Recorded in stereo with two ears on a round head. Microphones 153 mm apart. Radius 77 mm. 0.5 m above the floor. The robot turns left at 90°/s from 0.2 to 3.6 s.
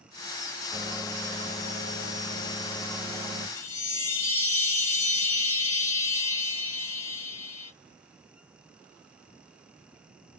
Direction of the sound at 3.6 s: 10° left (ahead or behind).